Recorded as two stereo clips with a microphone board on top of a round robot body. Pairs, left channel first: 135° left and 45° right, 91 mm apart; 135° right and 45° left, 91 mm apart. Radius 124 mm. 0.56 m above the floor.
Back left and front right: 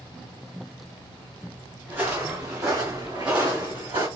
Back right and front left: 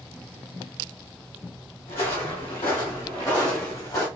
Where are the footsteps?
115° right, 2.0 m; by 4.1 s 75° right, 2 m.